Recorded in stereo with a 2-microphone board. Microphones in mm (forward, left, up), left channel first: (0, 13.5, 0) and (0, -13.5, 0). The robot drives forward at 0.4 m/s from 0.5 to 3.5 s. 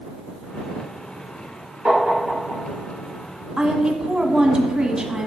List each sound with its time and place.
1.9 s tapping: 50° right (ahead or behind), 3 m; by 2.6 s 45° right (ahead or behind), 3.5 m
3.6 s a woman speaking: 40° right (ahead or behind), 1.3 m